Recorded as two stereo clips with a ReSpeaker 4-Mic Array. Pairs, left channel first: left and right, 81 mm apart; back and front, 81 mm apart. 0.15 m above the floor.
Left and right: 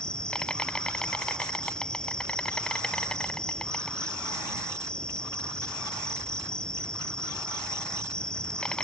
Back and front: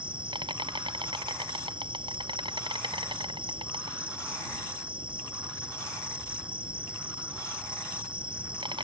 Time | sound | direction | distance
0.0 | an insect | 10° left | ?